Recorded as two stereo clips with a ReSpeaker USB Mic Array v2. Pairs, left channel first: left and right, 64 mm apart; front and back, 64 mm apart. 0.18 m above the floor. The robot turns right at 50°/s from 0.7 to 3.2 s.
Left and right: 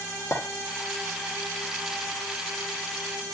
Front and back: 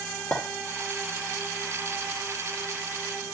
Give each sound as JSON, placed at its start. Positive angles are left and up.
{"t": 0.3, "sound": "a clink", "azimuth_deg": 45, "distance_m": 2.5}